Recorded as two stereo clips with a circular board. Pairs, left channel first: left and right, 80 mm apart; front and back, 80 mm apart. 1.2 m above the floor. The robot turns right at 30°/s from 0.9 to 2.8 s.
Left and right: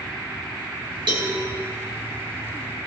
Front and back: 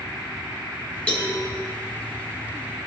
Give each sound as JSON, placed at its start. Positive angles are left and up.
{"t": 1.1, "sound": "a cowbell", "azimuth_deg": -80, "distance_m": 3.0}